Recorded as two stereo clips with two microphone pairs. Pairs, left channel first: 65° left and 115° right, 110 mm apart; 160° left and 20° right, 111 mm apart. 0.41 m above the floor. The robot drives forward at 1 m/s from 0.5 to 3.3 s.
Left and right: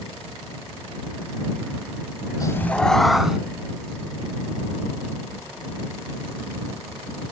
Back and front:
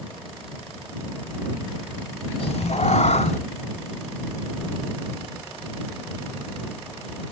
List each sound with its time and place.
2.4 s a cat meowing: 125° left, 0.6 m; by 3.4 s 160° left, 1.3 m